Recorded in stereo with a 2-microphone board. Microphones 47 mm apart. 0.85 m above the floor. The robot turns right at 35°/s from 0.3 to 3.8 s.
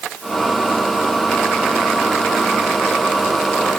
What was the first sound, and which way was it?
Only background noise.